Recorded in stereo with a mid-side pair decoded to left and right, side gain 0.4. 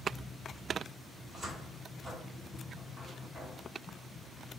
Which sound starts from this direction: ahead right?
A cupboard door, at 1.2 s.